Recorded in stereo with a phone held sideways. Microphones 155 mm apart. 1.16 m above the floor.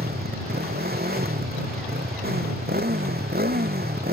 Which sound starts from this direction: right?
A motorcycle, at 0.0 s.